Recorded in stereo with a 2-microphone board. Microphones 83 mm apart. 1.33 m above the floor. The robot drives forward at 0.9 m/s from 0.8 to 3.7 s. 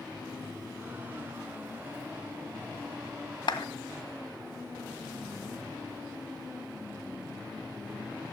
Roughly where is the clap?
Left.